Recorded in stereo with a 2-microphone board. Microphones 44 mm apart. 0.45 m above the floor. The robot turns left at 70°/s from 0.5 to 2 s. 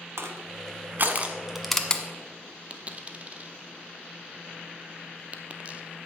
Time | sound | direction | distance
0.2 | crushing | 85° right | 1.3 m
2.7 | a dropped coin | 35° right (ahead or behind) | 1.0 m